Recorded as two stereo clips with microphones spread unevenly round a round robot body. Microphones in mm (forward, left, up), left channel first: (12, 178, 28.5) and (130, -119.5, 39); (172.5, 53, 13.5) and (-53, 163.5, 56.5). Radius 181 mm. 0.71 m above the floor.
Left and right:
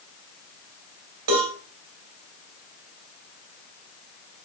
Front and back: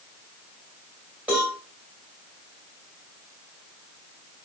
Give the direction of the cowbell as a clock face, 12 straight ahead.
4 o'clock.